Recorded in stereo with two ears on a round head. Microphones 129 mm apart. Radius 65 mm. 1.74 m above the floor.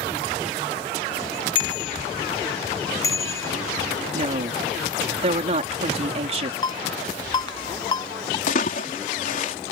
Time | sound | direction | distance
1.6 | a bicycle bell | 40° left (ahead or behind) | ?
4.1 | a woman speaking | 50° right (ahead or behind) | ?
6.6 | a ringtone | 30° left (ahead or behind) | ?
8.5 | a splash | 60° left (ahead or behind) | ?